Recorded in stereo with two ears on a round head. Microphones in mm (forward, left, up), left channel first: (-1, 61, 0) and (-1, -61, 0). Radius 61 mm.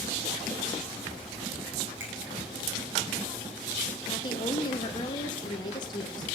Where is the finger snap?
20° right (ahead or behind), 6 m.